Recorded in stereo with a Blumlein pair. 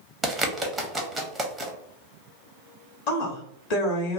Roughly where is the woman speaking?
Ahead left.